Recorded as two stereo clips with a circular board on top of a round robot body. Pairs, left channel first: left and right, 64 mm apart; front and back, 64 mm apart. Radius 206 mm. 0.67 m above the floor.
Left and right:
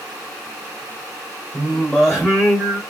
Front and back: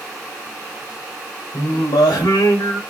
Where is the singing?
5° left, 0.9 m.